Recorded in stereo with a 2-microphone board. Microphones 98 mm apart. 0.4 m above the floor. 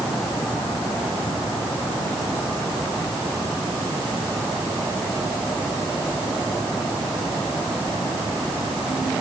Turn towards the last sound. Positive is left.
No sound to turn to.